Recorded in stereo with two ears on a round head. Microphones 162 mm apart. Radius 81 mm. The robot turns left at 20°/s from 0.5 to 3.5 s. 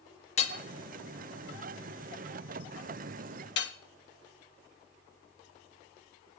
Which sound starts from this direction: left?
Hammering, at 0.4 s.